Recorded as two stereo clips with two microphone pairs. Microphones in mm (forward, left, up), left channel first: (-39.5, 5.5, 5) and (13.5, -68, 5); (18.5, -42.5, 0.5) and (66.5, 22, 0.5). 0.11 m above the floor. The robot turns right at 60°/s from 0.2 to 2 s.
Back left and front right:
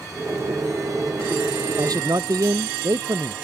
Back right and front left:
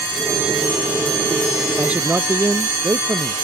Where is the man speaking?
30° right; by 3.4 s 10° right.